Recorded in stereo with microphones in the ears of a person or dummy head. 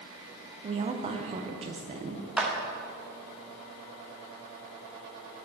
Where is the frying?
I don't hear frying.